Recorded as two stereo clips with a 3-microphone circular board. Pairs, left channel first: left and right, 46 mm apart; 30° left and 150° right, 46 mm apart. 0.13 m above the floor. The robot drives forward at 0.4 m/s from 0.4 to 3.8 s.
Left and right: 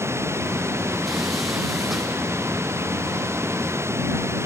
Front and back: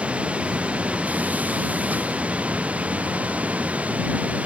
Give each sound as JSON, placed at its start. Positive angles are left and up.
{"t": 0.0, "sound": "running water", "azimuth_deg": -90}